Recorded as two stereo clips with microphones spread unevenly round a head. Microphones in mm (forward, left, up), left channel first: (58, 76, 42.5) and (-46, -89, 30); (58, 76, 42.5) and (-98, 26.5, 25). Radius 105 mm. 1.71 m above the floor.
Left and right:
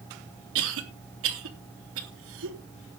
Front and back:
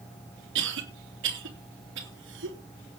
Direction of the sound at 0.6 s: 140° right.